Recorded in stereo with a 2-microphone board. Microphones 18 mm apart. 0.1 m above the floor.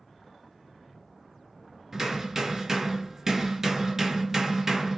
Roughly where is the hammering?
Right.